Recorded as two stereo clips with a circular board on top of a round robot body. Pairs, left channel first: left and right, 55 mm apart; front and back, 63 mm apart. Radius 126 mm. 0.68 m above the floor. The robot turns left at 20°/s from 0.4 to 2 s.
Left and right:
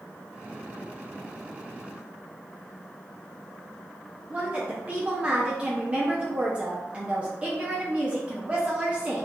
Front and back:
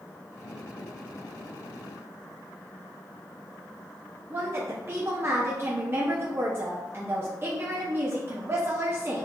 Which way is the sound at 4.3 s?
145° right.